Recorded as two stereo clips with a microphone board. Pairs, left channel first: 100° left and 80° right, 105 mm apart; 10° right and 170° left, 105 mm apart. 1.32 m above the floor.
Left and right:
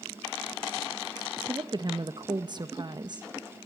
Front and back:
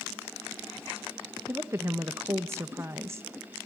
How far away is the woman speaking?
About 1.2 m.